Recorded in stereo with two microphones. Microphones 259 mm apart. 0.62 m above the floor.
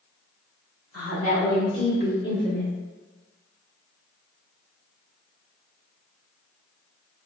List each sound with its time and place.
0.9 s a woman speaking: 65° left (ahead or behind), 1.8 m; by 2.7 s 30° left (ahead or behind), 1.3 m